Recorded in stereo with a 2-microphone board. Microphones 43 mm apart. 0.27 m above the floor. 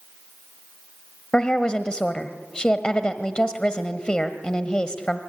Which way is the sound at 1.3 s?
20° left (ahead or behind).